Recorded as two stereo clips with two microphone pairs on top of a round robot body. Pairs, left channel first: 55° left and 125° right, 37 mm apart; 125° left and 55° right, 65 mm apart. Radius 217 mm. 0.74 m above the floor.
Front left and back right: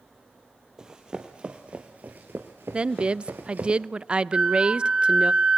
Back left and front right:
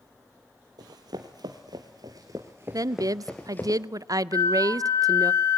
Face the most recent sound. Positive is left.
turn(degrees=170)